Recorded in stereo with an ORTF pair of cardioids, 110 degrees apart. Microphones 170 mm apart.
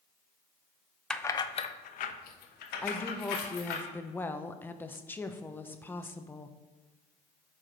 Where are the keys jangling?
5° left, 0.6 m; by 3.8 s 80° left, 2.5 m.